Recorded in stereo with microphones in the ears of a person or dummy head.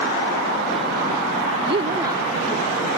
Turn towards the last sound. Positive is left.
turn(degrees=-15)  # may be behind; listen again after turning